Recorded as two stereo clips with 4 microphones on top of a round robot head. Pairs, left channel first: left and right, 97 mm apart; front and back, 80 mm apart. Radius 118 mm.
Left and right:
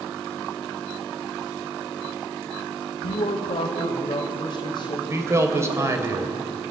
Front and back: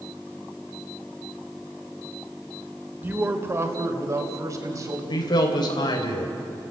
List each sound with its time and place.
3.0 s a man speaking: 115° left, 2.5 m; by 5.0 s 135° left, 4.5 m
5.1 s a man speaking: 30° right, 3 m